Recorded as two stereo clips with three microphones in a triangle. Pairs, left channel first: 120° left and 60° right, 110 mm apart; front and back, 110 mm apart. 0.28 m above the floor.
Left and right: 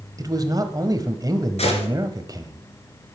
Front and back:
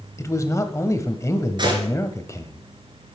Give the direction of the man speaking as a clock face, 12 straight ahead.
1 o'clock.